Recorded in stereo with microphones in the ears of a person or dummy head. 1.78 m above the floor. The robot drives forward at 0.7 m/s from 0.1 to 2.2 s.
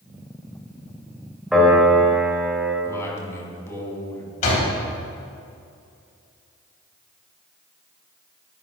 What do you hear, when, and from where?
1.5 s a piano: centre (ahead or behind), 2.0 m
2.9 s a man speaking: 15° left (ahead or behind), 2.5 m
4.4 s a door slam: 45° left (ahead or behind), 3.5 m